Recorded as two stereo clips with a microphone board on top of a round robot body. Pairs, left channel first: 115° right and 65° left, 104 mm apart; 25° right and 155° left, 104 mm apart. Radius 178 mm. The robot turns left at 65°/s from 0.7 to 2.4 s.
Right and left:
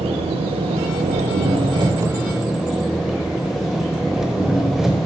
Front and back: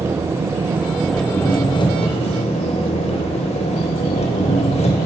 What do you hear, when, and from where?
0.0 s an engine running: 90° left, 0.7 m; by 5.1 s 20° right, 0.7 m